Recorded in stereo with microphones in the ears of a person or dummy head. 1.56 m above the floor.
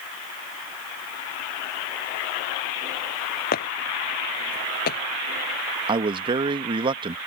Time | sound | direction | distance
3.5 | footsteps | 50° left (ahead or behind) | ?
5.9 | a man speaking | 25° right (ahead or behind) | ?